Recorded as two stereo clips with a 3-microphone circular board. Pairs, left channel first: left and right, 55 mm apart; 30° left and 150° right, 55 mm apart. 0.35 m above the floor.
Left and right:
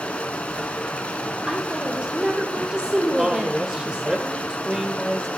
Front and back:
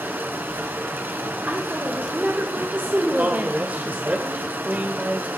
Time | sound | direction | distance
0.0 | running water | 160° left | 0.9 m
1.5 | a woman speaking | 145° right | 1.1 m
3.2 | a man speaking | 160° right | 0.9 m